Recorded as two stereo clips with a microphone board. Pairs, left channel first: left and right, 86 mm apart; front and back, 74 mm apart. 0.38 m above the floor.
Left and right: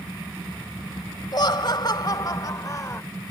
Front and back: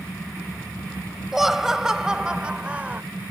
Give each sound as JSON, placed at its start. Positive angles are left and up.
{"t": 1.3, "sound": "laughter", "azimuth_deg": 95}